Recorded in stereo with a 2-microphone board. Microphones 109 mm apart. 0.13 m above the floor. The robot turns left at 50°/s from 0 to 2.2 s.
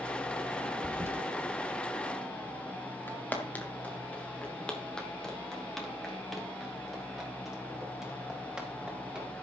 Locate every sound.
0.8 s a toilet flushing: 15° right (ahead or behind), 1.8 m; by 1.1 s 25° right (ahead or behind), 1.8 m
3.1 s footsteps: 20° left (ahead or behind), 3.5 m; by 9.3 s 5° right (ahead or behind), 6 m